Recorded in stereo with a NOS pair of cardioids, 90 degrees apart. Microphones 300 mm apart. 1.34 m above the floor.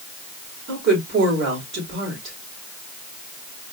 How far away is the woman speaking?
About 4 m.